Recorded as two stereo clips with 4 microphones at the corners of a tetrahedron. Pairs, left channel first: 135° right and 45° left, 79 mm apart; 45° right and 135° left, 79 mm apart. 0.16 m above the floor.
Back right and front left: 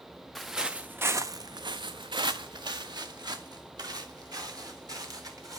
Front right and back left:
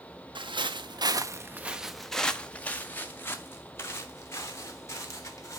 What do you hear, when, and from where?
0.3 s footsteps: 135° left, 0.8 m; by 5.6 s 5° left, 2.5 m